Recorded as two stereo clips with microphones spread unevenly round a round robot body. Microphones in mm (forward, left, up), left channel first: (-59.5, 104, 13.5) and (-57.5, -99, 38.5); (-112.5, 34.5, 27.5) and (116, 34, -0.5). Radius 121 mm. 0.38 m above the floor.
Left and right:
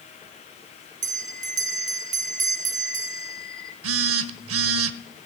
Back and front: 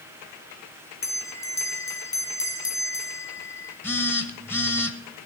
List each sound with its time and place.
1.0 s a bell: 100° right, 1.4 m
3.8 s a phone buzzing: 95° right, 0.8 m